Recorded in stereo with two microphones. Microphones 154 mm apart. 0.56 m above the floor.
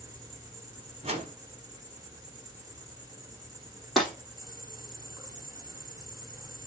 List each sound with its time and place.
0.0 s an insect: 20° right (ahead or behind), 1.7 m
1.0 s a whoosh: 40° right (ahead or behind), 1.3 m
4.0 s breaking glass: centre (ahead or behind), 3 m